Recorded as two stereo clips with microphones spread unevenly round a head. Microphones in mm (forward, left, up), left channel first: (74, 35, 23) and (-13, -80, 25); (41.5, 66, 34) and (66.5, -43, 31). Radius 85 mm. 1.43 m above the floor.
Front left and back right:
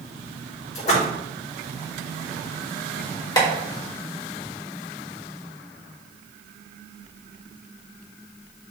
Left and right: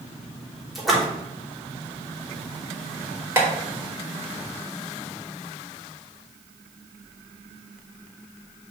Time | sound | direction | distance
0.8 | a splash | 15° left | 3.5 m
3.4 | tapping | 10° right | 4 m